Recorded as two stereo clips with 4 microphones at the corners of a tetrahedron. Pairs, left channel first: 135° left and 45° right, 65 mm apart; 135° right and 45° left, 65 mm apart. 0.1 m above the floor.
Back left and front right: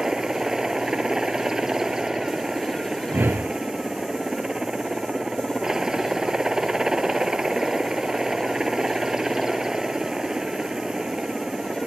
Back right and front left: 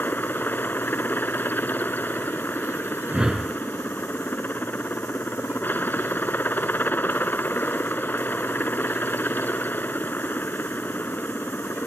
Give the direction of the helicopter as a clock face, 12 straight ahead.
4 o'clock.